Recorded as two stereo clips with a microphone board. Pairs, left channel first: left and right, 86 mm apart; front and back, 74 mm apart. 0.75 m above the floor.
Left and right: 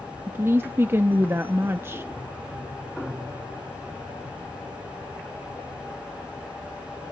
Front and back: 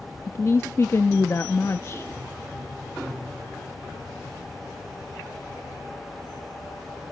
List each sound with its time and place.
0.3 s a woman speaking: 40° right, 0.6 m